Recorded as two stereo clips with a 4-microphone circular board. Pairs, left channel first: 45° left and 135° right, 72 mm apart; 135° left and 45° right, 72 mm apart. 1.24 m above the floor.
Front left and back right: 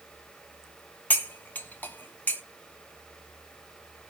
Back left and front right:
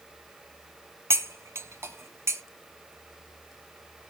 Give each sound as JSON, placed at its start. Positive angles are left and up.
{"t": 1.1, "sound": "cutlery clinking", "azimuth_deg": -10, "distance_m": 0.6}